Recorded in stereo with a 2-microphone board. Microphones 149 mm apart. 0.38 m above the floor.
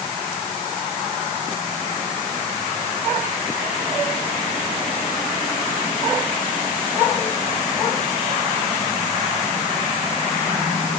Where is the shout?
I don't hear a shout.